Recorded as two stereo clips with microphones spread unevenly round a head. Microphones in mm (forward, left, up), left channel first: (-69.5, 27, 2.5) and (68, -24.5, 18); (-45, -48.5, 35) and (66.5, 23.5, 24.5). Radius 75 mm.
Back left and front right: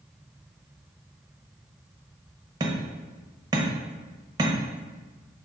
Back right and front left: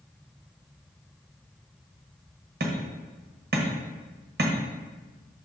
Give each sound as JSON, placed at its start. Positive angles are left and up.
{"t": 2.6, "sound": "hammering", "azimuth_deg": 35, "distance_m": 1.2}